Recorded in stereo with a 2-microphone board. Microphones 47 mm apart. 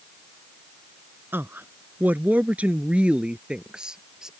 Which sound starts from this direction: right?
A woman speaking, at 1.3 s.